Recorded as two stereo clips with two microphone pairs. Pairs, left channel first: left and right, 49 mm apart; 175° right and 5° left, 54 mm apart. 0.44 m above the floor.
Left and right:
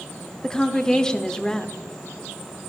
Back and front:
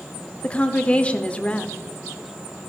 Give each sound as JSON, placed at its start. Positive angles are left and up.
{"t": 0.4, "sound": "a woman speaking", "azimuth_deg": 155, "distance_m": 0.8}